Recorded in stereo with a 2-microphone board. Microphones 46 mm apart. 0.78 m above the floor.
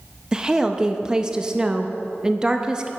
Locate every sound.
0.3 s a woman speaking: 15° right (ahead or behind), 0.6 m